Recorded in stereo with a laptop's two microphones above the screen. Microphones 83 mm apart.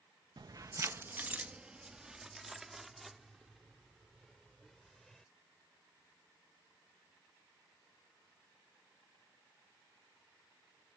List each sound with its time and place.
0.4 s keys jangling: 55° right (ahead or behind); by 5.3 s 5° left (ahead or behind)